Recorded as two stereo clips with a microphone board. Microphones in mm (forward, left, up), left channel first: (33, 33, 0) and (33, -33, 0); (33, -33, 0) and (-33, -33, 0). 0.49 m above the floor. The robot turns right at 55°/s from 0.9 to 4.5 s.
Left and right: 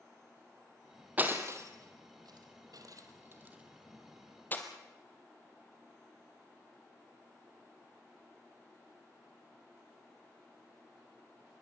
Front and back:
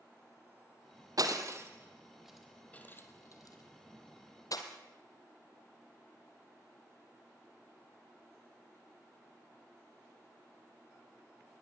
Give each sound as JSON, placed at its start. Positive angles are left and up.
{"t": 1.2, "sound": "breaking glass", "azimuth_deg": -155, "distance_m": 2.5}